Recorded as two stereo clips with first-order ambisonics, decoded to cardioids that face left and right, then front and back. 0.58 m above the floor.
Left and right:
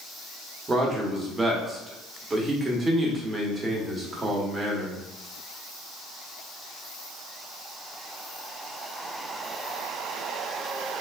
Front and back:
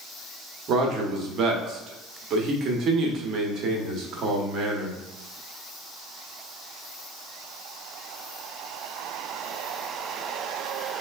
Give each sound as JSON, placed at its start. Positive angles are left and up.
{"t": 0.7, "sound": "a man speaking", "azimuth_deg": -160, "distance_m": 0.7}